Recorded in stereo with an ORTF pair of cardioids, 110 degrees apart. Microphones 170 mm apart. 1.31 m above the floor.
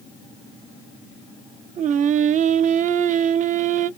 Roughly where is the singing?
Ahead right.